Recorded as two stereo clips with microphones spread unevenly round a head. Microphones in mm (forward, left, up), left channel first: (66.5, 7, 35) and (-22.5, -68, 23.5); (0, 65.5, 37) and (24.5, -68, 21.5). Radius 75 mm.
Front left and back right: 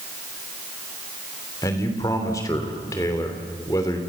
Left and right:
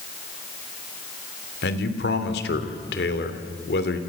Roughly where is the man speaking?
Left.